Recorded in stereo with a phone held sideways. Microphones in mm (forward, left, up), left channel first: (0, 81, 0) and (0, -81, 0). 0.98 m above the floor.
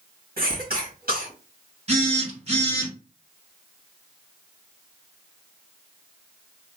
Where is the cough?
70° right (ahead or behind), 1.9 m.